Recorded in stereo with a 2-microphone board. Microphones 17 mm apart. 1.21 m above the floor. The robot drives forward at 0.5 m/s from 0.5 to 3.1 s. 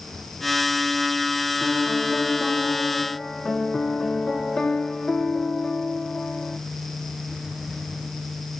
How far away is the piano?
About 2 m.